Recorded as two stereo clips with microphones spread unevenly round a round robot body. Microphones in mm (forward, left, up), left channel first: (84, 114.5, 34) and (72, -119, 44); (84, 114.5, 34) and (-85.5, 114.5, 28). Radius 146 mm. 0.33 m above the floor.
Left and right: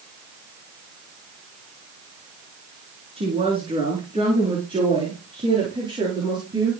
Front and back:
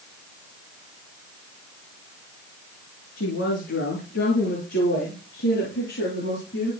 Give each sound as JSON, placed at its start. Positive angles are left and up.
{"t": 3.2, "sound": "a woman speaking", "azimuth_deg": -25, "distance_m": 5.0}